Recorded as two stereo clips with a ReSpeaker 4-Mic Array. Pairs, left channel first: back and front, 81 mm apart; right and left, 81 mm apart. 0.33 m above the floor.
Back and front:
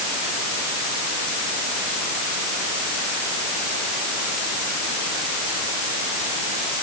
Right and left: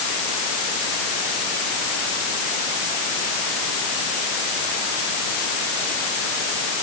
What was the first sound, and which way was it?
Only background noise.